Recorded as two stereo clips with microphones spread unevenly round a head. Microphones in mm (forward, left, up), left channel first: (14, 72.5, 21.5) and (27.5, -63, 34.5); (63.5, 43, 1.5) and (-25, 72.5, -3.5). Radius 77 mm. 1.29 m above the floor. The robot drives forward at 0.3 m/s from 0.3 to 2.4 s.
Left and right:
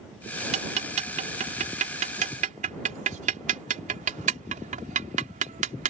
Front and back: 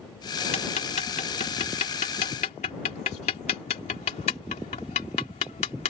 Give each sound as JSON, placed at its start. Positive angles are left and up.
{"t": 0.5, "sound": "ticking", "azimuth_deg": -45}